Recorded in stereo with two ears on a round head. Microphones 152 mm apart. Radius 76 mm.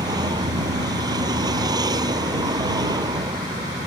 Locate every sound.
0.0 s a vehicle: 25° right (ahead or behind)